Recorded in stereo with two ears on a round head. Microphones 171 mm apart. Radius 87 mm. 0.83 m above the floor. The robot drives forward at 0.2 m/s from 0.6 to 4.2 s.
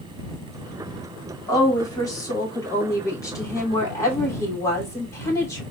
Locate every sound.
1.5 s a woman speaking: 20° left (ahead or behind), 2 m; by 5.6 s 15° left (ahead or behind), 2.5 m